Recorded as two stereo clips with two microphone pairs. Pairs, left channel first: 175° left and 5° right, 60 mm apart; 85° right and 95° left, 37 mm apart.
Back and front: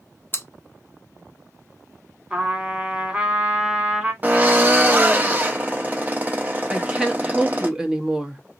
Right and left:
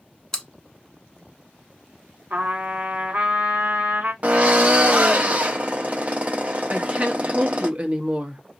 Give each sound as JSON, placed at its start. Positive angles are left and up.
{"t": 0.3, "sound": "chewing", "azimuth_deg": -150, "distance_m": 0.7}
{"t": 2.3, "sound": "a trumpet", "azimuth_deg": 70, "distance_m": 1.6}
{"t": 4.2, "sound": "a drill", "azimuth_deg": 55, "distance_m": 0.7}
{"t": 6.7, "sound": "a woman speaking", "azimuth_deg": 70, "distance_m": 0.8}